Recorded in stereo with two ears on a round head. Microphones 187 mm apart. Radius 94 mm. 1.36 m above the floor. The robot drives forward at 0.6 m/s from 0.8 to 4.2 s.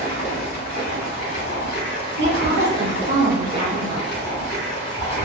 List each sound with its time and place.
0.0 s running water: 45° left (ahead or behind), 1.7 m; by 5.2 s 40° left (ahead or behind), 2.0 m
2.2 s a woman speaking: 55° right (ahead or behind), 1.2 m; by 4.2 s 30° right (ahead or behind), 2 m